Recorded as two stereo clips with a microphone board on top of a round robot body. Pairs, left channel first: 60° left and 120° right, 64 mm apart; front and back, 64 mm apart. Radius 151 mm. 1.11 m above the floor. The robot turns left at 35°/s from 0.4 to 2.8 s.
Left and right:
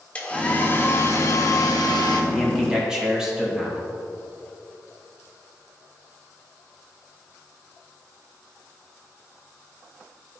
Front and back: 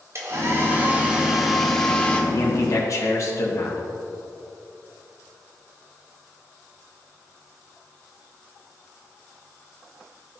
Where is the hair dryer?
130° left, 1.3 m; by 2.2 s 70° left, 1.3 m.